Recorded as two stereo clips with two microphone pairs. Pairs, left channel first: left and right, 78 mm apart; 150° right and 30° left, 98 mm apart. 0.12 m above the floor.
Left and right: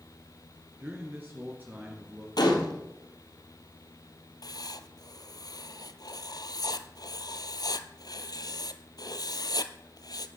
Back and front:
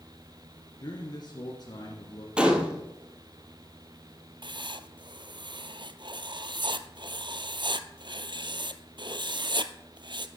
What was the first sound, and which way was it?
A man speaking, 145° right.